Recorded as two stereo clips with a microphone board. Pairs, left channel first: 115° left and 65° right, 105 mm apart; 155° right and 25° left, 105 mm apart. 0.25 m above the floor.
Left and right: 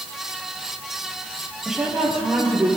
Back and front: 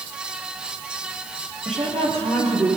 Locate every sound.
1.6 s a woman speaking: 15° left, 7 m